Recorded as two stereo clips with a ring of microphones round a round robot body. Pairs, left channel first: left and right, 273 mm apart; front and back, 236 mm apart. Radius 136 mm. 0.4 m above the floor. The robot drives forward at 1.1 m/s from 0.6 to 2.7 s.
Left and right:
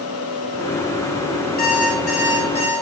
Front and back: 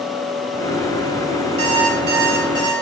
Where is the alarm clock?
150° left, 2.5 m; by 2.7 s 160° left, 4 m.